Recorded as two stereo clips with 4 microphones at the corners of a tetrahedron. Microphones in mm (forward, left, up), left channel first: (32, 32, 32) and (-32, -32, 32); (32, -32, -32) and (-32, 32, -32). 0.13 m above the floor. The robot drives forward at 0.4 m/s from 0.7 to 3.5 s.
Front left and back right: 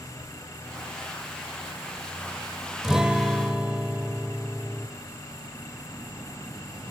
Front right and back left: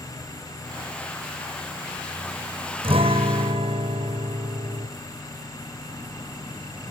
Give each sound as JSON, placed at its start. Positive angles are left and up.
{"t": 2.8, "sound": "a guitar", "azimuth_deg": 140, "distance_m": 2.5}